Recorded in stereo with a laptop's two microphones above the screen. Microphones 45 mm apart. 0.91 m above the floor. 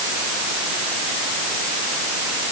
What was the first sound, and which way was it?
Only background noise.